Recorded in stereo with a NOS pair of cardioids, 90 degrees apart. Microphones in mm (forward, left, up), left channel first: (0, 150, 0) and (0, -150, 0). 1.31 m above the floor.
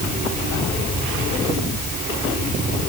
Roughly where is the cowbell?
No cowbell in this recording.